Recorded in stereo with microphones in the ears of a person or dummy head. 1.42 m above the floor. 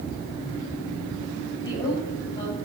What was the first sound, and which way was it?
A woman speaking, 25° left (ahead or behind).